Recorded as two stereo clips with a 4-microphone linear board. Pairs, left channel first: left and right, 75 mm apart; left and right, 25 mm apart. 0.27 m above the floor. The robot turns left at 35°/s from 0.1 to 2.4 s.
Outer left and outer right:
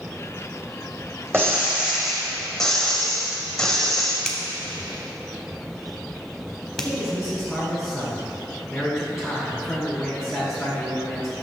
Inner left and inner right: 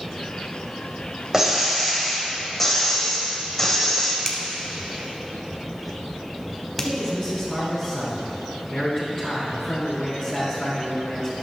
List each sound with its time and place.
1.3 s breaking glass: 150° right, 1.8 m; by 4.2 s 175° left, 1.8 m
4.2 s a finger snap: 10° left (ahead or behind), 1.0 m
6.8 s a man speaking: 10° right (ahead or behind), 2.5 m